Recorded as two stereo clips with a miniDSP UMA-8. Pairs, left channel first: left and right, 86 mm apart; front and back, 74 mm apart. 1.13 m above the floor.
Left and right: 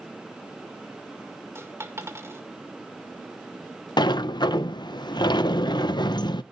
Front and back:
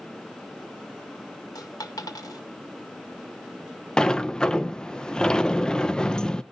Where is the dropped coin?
30° right, 2 m.